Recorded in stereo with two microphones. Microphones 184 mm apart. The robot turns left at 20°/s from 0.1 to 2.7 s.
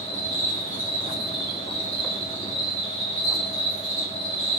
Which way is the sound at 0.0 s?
145° left.